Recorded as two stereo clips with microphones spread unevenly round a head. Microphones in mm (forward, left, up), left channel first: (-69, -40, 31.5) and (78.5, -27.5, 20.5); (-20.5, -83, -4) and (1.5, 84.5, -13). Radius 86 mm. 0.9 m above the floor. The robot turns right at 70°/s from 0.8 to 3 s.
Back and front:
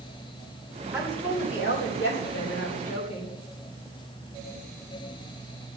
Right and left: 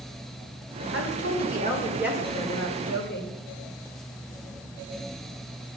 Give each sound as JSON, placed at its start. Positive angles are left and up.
{"t": 0.9, "sound": "a woman speaking", "azimuth_deg": 85, "distance_m": 3.0}